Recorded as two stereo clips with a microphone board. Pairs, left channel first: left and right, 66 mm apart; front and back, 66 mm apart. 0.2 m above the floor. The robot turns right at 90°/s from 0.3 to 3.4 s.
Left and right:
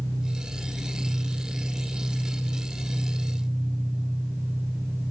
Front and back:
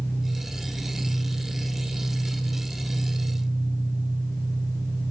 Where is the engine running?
65° left, 3.5 m; by 5.1 s 15° right, 3.5 m.